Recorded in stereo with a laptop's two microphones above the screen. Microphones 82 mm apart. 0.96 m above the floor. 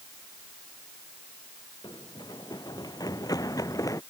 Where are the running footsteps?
60° left (ahead or behind); by 4.0 s 45° left (ahead or behind).